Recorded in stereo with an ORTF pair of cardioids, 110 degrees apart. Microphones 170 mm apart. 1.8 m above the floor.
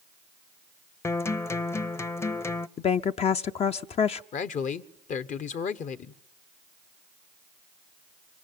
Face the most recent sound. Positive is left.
turn(degrees=50)